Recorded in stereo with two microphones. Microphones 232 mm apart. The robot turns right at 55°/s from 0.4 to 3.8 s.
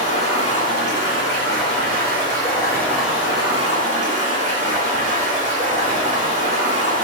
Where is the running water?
35° left, 1.7 m; by 7.0 s 135° right, 1.7 m.